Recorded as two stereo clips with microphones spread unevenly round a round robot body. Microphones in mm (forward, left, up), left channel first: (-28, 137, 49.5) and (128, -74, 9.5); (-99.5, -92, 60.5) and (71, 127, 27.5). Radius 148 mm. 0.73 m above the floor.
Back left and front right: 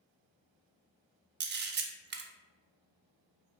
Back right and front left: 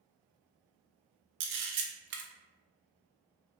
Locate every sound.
1.4 s a camera shutter: straight ahead, 0.6 m